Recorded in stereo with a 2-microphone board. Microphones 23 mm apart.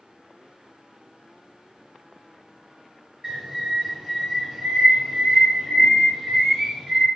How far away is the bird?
About 1.7 m.